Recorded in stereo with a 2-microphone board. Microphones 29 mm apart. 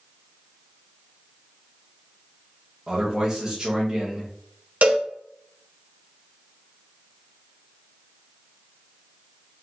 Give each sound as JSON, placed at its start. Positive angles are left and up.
{"t": 2.9, "sound": "a man speaking", "side_deg": -15, "distance_m": 1.0}
{"t": 4.8, "sound": "a cowbell", "side_deg": -60, "distance_m": 0.9}